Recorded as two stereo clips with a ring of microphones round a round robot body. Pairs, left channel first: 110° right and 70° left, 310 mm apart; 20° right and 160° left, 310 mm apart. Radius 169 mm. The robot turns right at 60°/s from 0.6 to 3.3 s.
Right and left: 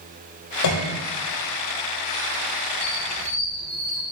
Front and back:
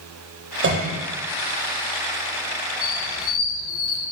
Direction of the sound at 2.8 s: 55° right.